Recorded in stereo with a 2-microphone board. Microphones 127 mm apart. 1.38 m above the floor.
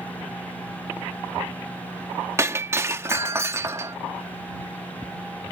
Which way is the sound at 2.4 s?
20° right (ahead or behind).